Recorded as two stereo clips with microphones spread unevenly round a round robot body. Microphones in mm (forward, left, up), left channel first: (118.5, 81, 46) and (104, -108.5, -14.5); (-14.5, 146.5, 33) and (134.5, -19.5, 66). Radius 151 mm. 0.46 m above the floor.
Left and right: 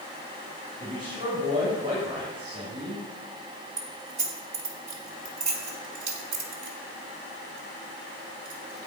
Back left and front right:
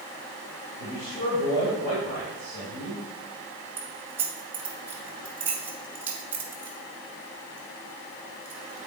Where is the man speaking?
175° right, 2.5 m.